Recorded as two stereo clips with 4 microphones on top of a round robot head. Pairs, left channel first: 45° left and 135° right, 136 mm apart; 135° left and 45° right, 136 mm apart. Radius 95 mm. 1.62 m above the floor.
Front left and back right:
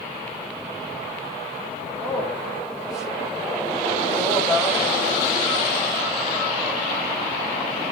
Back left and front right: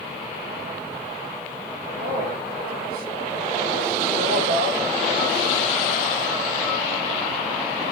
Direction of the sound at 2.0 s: 45° right.